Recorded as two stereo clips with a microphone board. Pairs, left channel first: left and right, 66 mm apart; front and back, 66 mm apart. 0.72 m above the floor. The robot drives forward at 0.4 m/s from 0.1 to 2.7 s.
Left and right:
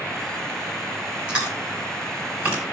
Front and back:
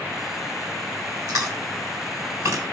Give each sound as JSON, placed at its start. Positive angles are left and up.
{"t": 1.3, "sound": "chewing", "azimuth_deg": -165, "distance_m": 4.0}